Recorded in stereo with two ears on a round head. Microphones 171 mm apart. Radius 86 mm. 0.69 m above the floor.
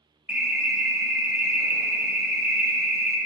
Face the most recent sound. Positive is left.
turn(degrees=-10)  # may be behind; listen again after turning